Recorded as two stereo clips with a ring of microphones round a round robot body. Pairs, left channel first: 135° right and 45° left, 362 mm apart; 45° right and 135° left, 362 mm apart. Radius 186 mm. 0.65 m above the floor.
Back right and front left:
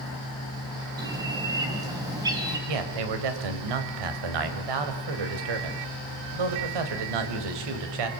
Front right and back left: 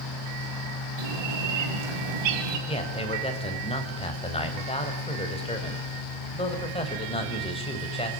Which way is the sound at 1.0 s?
125° left.